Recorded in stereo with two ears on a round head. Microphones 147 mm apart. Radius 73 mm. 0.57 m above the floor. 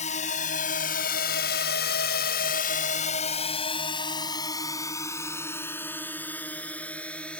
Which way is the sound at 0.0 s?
45° left (ahead or behind).